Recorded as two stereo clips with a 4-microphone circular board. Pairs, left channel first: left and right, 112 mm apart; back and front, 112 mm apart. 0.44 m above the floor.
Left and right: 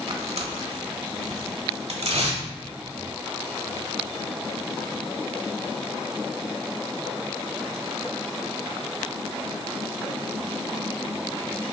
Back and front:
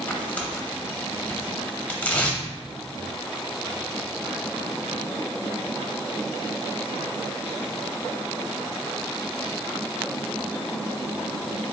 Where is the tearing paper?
105° right, 0.8 m.